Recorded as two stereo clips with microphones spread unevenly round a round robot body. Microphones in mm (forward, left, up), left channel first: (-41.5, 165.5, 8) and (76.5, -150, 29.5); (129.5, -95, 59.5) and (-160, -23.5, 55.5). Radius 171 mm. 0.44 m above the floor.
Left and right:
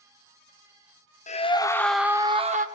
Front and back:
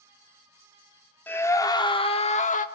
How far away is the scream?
About 1.3 m.